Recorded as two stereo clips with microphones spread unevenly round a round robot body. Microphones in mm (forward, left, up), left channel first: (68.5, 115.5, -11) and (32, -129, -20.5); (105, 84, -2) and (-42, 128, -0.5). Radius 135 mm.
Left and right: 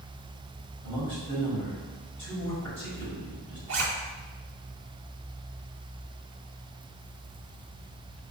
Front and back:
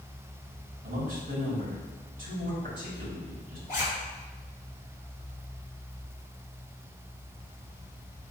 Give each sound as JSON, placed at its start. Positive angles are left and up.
{"t": 0.8, "sound": "a man speaking", "azimuth_deg": 150, "distance_m": 1.8}
{"t": 3.7, "sound": "a zipper", "azimuth_deg": -85, "distance_m": 1.6}